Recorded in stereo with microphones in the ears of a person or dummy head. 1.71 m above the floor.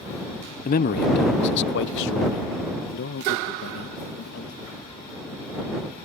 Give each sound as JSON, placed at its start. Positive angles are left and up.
{"t": 0.7, "sound": "a man speaking", "side_deg": 40}